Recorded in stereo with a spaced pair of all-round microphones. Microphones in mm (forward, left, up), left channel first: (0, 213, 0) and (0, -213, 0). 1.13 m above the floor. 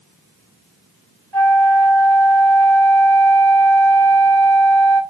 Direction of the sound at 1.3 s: 70° right (ahead or behind).